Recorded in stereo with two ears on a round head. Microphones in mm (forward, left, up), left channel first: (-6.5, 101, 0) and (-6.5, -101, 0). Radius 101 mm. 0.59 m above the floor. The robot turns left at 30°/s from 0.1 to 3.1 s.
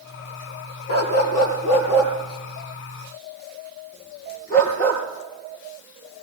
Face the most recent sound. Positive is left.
turn(degrees=40)  # may be behind; listen again after turning